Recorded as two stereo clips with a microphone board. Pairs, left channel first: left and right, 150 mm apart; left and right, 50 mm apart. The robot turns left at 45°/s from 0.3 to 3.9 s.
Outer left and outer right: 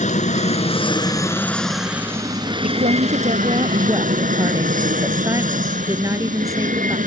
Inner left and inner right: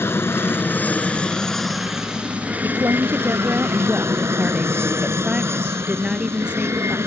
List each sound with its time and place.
0.0 s an aircraft: 65° left; by 7.1 s 95° right
2.6 s a woman speaking: 100° right; by 7.0 s 160° right